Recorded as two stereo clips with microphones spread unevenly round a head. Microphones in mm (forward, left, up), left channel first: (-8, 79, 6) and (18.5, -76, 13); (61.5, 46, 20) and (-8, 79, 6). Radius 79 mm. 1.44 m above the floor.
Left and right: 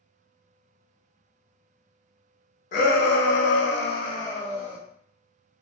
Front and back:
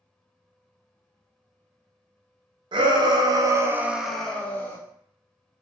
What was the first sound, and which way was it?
A shout, 140° left.